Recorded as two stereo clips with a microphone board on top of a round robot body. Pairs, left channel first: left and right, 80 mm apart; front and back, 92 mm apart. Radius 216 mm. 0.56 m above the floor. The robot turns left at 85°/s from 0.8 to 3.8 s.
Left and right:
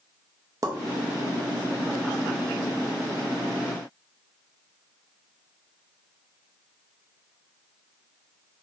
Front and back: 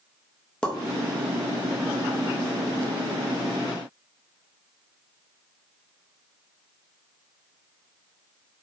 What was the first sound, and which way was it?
A pop, 75° right.